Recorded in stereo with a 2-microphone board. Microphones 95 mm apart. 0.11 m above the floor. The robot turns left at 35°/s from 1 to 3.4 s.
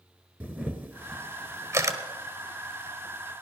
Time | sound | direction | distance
0.4 | a camera shutter | 20° right (ahead or behind) | 1.4 m